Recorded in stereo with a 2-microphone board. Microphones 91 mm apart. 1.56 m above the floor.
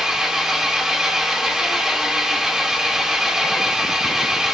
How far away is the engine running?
About 1.2 m.